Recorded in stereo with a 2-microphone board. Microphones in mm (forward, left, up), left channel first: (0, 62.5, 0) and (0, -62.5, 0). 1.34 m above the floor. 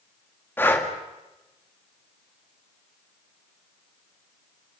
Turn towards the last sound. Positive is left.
turn(degrees=15)  # may be behind; listen again after turning